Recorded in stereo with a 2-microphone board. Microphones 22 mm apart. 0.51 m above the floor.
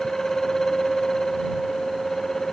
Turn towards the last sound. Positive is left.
No sound to turn to.